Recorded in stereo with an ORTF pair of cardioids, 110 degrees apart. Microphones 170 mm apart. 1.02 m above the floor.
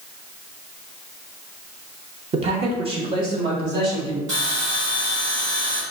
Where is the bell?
45° right, 1.8 m.